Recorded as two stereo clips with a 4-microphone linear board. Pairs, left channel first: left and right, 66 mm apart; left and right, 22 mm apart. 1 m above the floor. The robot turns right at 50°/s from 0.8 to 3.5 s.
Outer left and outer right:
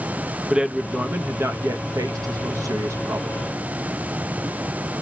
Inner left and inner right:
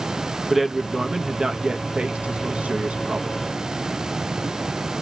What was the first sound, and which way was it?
A man speaking, 165° right.